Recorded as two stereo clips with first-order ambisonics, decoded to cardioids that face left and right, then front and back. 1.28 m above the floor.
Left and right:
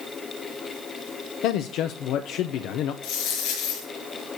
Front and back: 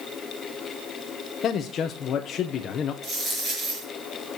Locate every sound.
1.4 s a man speaking: 55° left, 0.6 m
3.0 s a dropped coin: 110° left, 5 m